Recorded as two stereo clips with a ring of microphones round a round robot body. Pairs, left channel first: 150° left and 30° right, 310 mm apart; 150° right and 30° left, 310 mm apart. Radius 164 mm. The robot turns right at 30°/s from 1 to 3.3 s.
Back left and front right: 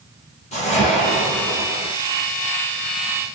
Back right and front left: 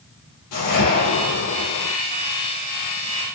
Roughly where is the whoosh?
Behind right.